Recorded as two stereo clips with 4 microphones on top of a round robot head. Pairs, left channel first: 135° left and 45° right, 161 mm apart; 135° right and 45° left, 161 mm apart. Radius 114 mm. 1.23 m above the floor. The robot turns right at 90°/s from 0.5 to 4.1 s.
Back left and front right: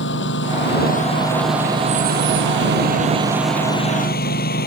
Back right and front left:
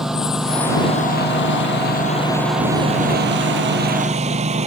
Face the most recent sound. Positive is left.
turn(degrees=100)